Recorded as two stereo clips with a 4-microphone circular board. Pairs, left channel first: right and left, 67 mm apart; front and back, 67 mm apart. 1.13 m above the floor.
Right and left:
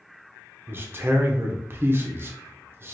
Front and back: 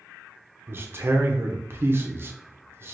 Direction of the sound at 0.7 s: 140° left.